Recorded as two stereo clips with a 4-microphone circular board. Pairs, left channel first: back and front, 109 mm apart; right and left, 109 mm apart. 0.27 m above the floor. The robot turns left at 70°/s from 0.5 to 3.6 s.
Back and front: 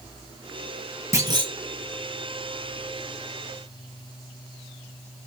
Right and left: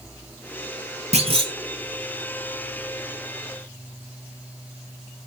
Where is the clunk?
65° left, 0.9 m; by 1.5 s 40° left, 0.9 m.